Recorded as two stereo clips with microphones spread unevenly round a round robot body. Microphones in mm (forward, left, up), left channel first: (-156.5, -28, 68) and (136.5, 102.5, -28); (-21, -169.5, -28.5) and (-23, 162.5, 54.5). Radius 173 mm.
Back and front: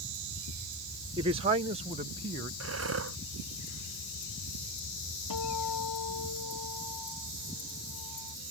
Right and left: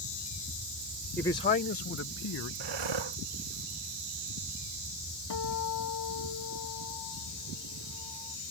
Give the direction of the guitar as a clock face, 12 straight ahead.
4 o'clock.